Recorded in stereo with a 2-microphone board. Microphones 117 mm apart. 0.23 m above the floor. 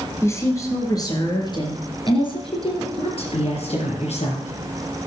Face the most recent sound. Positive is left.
turn(degrees=70)  # may be behind; listen again after turning